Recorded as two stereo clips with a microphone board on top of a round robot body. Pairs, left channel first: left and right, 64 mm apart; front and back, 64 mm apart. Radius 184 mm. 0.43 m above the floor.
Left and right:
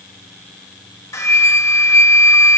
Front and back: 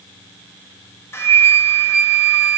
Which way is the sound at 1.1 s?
50° left.